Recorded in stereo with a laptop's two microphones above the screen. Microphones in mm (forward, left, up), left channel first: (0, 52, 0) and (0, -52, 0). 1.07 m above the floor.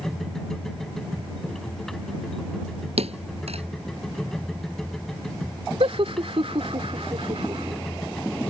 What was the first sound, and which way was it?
A machine running, 5° left (ahead or behind).